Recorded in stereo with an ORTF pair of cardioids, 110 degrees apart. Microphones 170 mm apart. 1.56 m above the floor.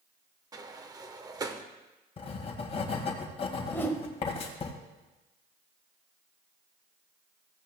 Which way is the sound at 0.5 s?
20° right.